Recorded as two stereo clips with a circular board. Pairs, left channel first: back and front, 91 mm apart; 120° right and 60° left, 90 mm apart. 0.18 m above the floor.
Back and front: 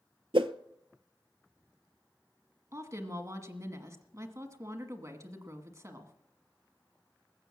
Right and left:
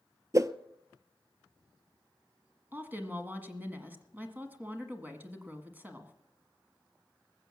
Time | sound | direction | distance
0.3 | a whoosh | 5° left | 0.5 m
2.7 | a woman speaking | 5° left | 1.4 m